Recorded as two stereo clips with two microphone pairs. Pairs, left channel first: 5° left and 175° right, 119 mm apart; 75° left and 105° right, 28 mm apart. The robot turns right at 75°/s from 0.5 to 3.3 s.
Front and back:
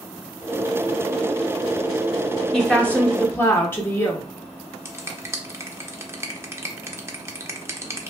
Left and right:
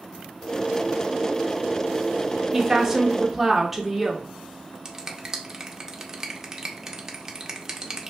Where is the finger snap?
155° right, 0.5 m.